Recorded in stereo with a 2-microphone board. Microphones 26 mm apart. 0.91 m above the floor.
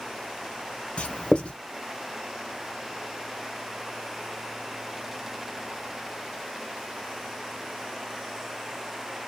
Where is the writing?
40° left (ahead or behind), 0.8 m.